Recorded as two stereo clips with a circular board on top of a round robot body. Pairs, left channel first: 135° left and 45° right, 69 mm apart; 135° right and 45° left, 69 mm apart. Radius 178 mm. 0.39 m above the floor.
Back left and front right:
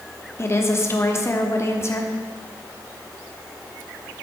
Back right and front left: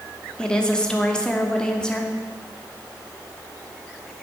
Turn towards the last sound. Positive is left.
turn(degrees=150)